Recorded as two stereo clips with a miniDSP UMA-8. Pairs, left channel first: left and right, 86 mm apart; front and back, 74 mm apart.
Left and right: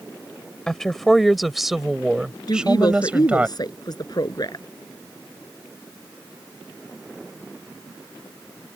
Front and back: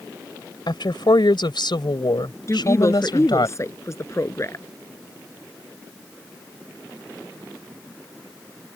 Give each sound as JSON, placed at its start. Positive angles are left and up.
{"t": 0.7, "sound": "a woman speaking", "azimuth_deg": 5}
{"t": 2.5, "sound": "a woman speaking", "azimuth_deg": 50}